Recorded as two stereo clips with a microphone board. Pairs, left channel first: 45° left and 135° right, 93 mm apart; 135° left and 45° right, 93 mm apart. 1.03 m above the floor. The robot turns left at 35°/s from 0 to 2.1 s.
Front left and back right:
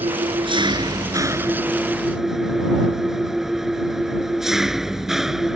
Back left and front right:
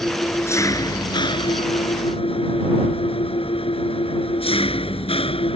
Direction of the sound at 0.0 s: 150° right.